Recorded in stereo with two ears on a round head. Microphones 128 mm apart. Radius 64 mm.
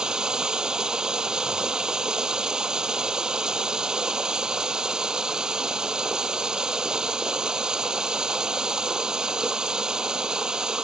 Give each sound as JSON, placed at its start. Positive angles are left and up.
{"t": 0.0, "sound": "running water", "side_deg": -5}